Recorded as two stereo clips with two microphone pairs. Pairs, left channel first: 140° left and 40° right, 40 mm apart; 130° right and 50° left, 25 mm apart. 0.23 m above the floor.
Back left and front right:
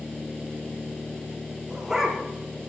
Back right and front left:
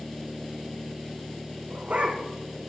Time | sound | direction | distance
1.7 | a dog barking | 40° left | 6 m